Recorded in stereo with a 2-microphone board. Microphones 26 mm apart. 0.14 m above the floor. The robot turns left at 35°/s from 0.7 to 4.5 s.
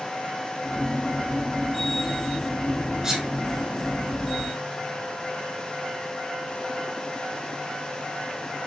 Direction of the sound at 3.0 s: 20° right (ahead or behind).